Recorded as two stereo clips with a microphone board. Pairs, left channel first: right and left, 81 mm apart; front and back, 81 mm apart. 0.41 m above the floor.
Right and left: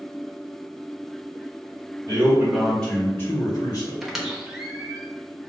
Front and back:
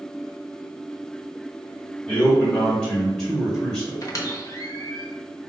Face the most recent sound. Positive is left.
turn(degrees=5)